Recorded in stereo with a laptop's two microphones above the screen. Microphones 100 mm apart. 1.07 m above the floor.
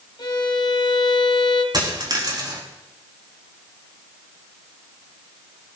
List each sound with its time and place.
0.2 s a violin: 45° left (ahead or behind), 3 m
1.7 s a dropped coin: 45° right (ahead or behind), 5 m